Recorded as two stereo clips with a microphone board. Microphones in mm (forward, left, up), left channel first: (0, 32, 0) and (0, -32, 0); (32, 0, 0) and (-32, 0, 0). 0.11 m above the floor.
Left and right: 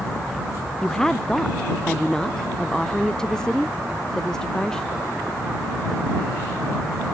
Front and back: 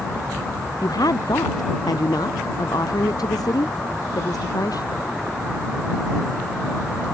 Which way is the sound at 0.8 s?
10° left.